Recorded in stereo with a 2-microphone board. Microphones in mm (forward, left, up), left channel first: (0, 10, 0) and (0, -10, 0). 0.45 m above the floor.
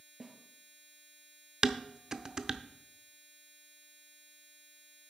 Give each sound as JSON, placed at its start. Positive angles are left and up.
{"t": 0.2, "sound": "a snare drum", "side_deg": -20, "distance_m": 1.8}
{"t": 1.6, "sound": "dishes clattering", "side_deg": -30, "distance_m": 0.5}